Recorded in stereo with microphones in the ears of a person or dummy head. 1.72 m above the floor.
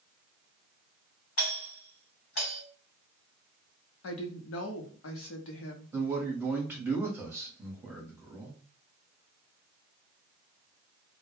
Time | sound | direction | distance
1.4 | a doorbell | 70° left (ahead or behind) | 1.2 m
4.0 | a woman speaking | 80° left | 0.7 m
5.9 | a man speaking | 10° right (ahead or behind) | 0.9 m